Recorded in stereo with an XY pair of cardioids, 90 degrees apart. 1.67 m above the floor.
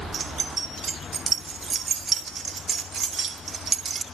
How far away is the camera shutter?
I don't hear a camera shutter.